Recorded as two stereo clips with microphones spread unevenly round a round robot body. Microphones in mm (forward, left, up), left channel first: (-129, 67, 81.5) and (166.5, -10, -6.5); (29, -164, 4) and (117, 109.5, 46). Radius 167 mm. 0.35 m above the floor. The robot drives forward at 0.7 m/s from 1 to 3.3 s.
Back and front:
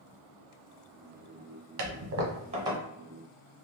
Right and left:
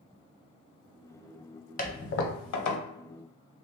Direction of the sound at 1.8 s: 45° right.